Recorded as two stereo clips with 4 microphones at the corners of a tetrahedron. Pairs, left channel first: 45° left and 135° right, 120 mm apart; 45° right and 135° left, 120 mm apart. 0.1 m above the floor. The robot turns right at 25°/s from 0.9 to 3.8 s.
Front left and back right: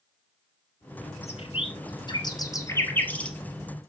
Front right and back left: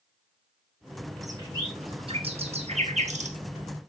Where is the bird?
75° left, 2 m; by 3.4 s 125° left, 2 m.